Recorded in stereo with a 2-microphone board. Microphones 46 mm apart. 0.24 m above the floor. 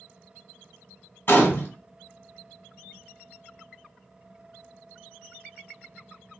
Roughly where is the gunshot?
Left.